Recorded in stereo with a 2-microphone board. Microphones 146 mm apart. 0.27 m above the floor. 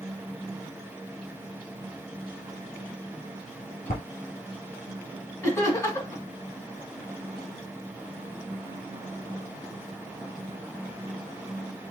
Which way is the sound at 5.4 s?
20° left (ahead or behind).